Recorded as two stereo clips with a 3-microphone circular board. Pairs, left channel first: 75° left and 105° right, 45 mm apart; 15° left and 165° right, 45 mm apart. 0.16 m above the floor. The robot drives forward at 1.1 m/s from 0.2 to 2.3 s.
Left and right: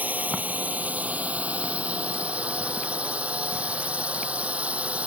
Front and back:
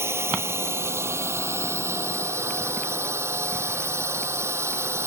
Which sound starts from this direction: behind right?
A drone, at 0.0 s.